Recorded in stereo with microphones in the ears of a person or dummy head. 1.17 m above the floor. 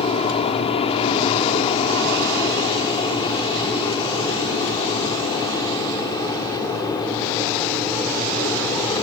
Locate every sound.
0.0 s an aircraft: 30° left (ahead or behind); by 9.0 s 15° left (ahead or behind)